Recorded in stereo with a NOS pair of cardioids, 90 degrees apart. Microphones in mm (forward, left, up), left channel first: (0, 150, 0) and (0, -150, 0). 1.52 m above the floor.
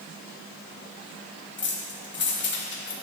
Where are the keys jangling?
40° left, 1.5 m.